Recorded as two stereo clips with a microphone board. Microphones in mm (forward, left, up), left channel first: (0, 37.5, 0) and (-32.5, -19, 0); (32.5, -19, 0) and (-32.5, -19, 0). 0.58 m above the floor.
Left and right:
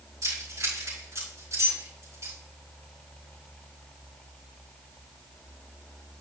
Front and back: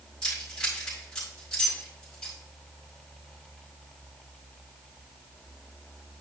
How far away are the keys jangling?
About 5 m.